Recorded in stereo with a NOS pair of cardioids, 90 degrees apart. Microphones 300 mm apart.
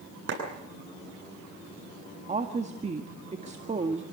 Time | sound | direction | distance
0.3 | a clap | 40° right | 9 m
2.3 | a woman speaking | 20° right | 1.8 m